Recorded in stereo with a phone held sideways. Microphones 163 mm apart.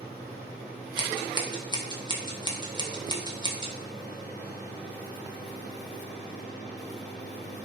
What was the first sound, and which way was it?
Scissors, 25° right (ahead or behind).